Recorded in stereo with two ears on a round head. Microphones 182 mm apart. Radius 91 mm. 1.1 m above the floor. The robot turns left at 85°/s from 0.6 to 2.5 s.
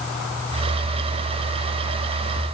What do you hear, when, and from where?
Only background noise.